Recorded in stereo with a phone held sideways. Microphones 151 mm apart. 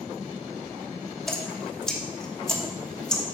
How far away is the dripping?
About 1.0 m.